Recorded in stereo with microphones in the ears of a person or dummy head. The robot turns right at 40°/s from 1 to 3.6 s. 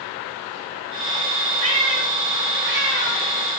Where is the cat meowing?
35° right (ahead or behind), 1.5 m.